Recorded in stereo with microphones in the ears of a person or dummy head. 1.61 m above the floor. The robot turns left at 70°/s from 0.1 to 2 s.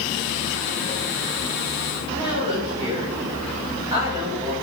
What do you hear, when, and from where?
2.1 s a woman speaking: 25° right (ahead or behind), 5.5 m